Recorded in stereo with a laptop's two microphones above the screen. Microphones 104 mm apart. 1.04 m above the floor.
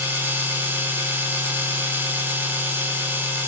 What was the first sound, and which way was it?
A machine running, 20° right (ahead or behind).